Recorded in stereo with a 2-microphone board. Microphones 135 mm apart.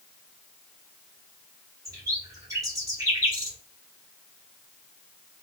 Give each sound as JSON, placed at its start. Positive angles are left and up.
{"t": 1.9, "sound": "a bird", "side_deg": -25, "distance_m": 1.2}